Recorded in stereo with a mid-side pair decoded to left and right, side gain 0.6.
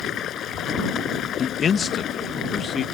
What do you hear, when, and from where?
0.0 s running water: 50° left
1.4 s a man speaking: 35° left